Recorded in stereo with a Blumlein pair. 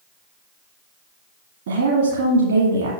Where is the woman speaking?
60° right, 1.6 m.